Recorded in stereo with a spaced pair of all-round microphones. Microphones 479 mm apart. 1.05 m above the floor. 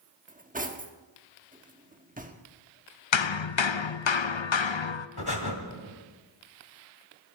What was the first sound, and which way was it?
Cutlery clinking, 15° right (ahead or behind).